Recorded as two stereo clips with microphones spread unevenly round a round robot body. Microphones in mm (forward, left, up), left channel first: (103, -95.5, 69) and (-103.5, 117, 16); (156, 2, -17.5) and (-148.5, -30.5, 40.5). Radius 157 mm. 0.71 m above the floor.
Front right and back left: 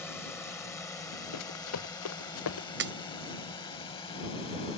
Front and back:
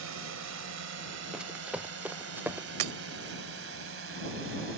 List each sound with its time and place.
0.0 s a drone: 130° right; by 4.8 s 120° right
1.3 s running footsteps: 85° right; by 2.7 s 90° right
2.8 s breaking glass: 170° right